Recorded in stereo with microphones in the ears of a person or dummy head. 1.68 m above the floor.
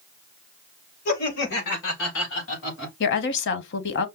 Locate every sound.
1.1 s laughter: 50° left (ahead or behind), 2.5 m; by 3.0 s 75° left (ahead or behind), 3.5 m
3.0 s a woman speaking: 65° left (ahead or behind), 1.0 m